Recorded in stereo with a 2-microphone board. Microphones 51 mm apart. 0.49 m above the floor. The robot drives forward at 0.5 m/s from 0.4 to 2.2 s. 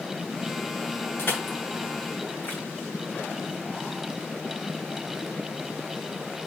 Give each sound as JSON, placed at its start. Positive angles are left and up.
{"t": 1.2, "sound": "crushing", "side_deg": 50, "distance_m": 3.0}